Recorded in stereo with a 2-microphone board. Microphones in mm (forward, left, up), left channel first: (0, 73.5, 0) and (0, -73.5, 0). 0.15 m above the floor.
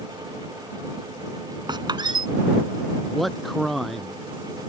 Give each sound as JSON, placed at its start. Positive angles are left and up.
{"t": 1.7, "sound": "a squeak", "side_deg": -30}
{"t": 3.1, "sound": "a man speaking", "side_deg": 0}